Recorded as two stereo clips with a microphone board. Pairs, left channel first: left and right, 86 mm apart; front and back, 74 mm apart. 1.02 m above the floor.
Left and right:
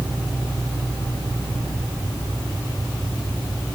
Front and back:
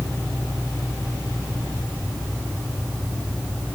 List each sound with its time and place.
Only background noise.